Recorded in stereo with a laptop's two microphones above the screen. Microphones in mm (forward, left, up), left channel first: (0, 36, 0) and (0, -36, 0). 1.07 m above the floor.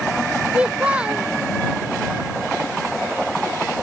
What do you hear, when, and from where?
0.5 s a child speaking: 15° right (ahead or behind)